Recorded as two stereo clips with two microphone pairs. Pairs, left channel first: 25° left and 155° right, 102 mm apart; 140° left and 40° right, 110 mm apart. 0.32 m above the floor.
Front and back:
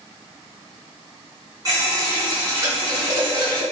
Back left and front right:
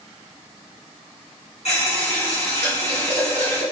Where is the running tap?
150° left, 1.9 m.